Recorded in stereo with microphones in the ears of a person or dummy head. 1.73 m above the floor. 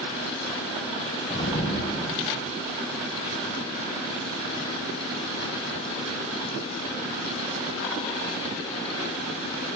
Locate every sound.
1.3 s an explosion: 25° left (ahead or behind), 1.1 m